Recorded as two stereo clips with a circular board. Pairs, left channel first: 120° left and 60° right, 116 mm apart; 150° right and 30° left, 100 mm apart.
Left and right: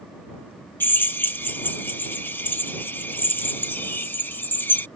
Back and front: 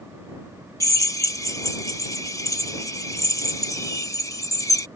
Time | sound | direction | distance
0.8 | a drill | straight behind | ?